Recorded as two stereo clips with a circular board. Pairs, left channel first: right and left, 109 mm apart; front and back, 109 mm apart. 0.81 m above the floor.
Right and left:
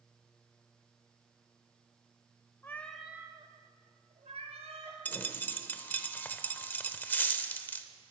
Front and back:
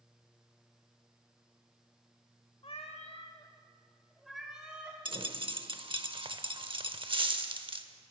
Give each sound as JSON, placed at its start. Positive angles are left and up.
{"t": 2.6, "sound": "a cat meowing", "azimuth_deg": -20, "distance_m": 1.1}
{"t": 5.0, "sound": "a dropped coin", "azimuth_deg": -160, "distance_m": 0.7}